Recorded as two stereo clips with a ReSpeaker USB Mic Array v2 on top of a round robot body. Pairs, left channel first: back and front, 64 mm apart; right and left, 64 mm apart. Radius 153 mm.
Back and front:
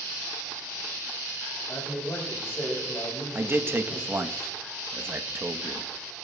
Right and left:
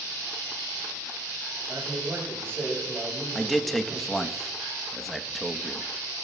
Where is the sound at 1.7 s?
135° left, 5 m.